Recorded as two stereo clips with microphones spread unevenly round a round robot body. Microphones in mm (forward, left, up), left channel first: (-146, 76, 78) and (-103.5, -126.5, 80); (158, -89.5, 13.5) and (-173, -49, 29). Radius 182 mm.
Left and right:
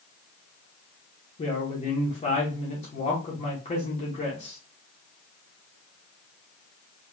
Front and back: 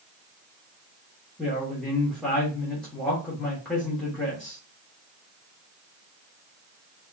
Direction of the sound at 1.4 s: 75° left.